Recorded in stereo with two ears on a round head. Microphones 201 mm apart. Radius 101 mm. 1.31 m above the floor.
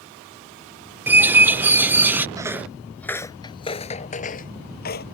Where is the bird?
10° right (ahead or behind).